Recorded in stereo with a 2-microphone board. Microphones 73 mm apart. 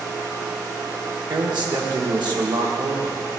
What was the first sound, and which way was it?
A man speaking, 80° right.